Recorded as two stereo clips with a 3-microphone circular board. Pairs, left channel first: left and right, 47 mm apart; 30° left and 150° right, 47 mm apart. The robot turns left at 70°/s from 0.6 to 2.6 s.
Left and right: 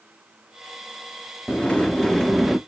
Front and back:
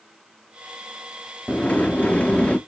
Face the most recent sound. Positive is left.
turn(degrees=-15)